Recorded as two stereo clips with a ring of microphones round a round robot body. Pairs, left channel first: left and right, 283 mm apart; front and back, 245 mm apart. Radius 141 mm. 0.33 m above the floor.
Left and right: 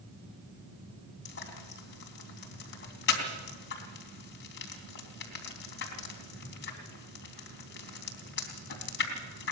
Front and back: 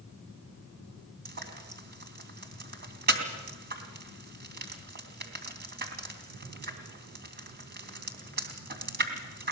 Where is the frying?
140° left, 3 m.